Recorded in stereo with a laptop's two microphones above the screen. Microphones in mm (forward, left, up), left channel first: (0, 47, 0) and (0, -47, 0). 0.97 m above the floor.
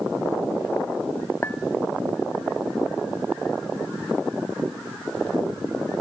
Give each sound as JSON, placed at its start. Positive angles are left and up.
{"t": 1.4, "sound": "a clink", "side_deg": 20, "distance_m": 0.9}